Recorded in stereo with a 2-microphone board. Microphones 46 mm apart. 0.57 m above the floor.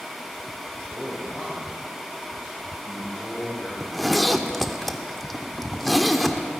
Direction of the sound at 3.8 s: 5° left (ahead or behind).